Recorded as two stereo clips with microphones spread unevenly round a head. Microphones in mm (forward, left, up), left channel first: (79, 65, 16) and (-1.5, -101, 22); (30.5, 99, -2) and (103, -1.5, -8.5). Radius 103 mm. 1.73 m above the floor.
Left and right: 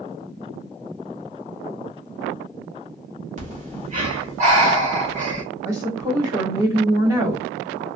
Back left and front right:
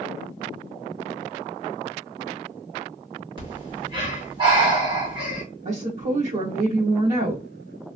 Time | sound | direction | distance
3.4 | breathing | 95° right | 1.5 m
5.7 | a woman speaking | 40° right | 1.3 m